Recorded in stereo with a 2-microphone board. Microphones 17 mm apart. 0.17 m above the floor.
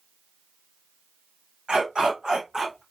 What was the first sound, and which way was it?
A dog barking, 80° right.